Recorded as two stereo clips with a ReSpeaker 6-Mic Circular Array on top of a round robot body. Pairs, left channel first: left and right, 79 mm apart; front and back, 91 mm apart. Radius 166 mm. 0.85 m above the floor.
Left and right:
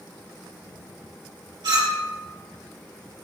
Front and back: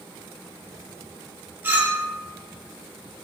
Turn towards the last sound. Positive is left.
turn(degrees=-115)